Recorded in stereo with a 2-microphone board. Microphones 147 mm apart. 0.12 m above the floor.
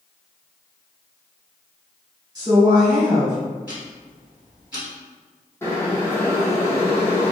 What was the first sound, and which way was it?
A woman speaking, 25° right (ahead or behind).